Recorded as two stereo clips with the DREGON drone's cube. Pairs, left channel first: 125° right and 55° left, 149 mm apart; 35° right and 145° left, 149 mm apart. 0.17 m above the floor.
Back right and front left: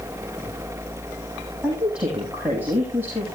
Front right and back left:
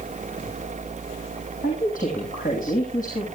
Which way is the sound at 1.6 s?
30° right.